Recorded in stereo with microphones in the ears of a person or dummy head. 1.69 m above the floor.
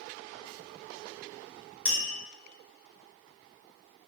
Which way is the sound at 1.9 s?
60° left (ahead or behind).